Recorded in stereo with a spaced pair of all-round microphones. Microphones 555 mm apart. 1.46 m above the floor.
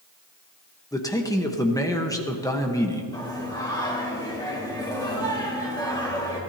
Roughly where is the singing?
Centre.